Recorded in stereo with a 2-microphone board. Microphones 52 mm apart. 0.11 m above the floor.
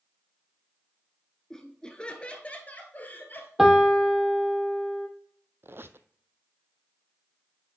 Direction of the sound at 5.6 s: 50° right (ahead or behind).